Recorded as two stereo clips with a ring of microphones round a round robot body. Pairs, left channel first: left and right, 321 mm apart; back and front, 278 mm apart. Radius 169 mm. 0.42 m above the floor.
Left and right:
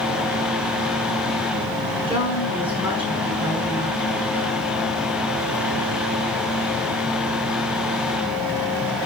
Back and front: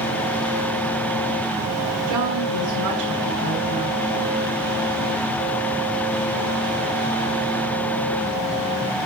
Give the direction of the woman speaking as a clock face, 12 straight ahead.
12 o'clock.